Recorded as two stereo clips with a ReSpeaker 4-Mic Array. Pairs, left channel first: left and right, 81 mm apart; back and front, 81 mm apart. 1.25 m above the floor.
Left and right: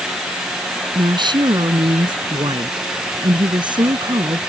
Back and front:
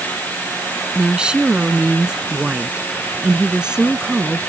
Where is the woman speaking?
80° right.